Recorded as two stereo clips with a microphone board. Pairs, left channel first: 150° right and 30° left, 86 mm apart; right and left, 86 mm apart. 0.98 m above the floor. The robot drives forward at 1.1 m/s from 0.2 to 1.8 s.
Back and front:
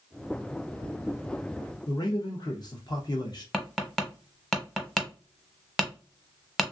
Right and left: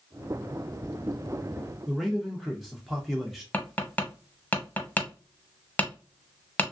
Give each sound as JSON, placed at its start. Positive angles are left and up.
{"t": 1.9, "sound": "a man speaking", "azimuth_deg": 180, "distance_m": 0.5}
{"t": 3.5, "sound": "tapping", "azimuth_deg": -70, "distance_m": 0.8}